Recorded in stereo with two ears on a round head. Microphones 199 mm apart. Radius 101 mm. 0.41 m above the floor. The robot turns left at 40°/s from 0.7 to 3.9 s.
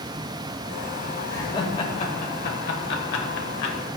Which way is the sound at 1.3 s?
15° left (ahead or behind).